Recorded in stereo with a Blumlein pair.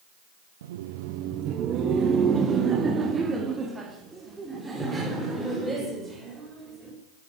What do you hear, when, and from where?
0.6 s laughter: 60° right, 0.8 m; by 6.9 s 5° right, 4.5 m